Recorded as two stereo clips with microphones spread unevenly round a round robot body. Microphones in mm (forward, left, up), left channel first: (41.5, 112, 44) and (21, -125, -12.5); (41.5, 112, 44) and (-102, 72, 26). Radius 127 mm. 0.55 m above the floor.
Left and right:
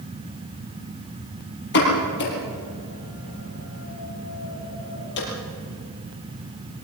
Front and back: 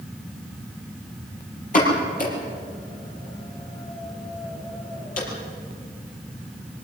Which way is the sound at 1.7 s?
45° left.